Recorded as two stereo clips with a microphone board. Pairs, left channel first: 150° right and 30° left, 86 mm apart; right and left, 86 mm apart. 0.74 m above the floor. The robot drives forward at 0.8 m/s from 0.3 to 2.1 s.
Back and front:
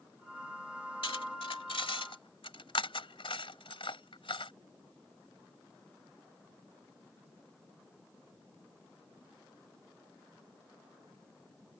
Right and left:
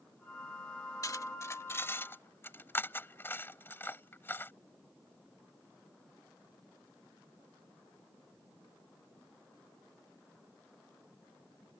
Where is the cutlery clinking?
140° right; by 4.5 s 155° right.